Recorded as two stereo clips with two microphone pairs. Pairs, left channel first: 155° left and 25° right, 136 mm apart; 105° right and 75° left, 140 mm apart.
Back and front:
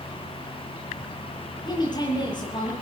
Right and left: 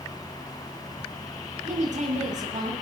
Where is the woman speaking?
100° left, 8.5 m.